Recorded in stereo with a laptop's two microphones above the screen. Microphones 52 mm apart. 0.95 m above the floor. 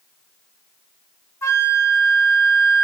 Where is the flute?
70° left (ahead or behind), 1.3 m.